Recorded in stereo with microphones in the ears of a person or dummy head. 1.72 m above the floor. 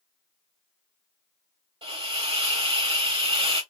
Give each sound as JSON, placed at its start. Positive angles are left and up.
{"t": 1.8, "sound": "a hiss", "side_deg": -30, "distance_m": 1.5}